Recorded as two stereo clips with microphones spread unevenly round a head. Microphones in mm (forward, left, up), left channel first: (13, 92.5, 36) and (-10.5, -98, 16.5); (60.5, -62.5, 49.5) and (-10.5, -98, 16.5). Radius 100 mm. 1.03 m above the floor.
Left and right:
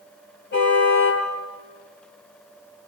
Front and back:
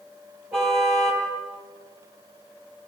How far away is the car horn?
About 9.5 m.